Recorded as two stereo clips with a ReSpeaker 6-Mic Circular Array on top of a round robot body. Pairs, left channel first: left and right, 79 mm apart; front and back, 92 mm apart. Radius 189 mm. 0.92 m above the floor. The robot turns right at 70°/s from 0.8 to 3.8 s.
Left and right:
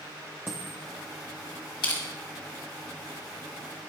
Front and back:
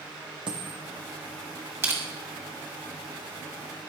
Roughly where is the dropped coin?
Behind right.